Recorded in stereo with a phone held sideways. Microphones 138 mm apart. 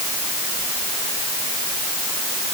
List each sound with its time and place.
Only background noise.